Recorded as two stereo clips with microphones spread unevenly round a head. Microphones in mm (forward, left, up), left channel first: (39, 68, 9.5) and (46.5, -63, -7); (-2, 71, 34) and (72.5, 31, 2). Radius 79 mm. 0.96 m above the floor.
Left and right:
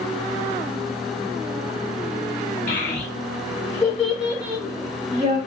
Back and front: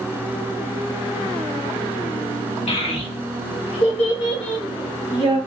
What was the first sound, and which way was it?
A child speaking, 140° left.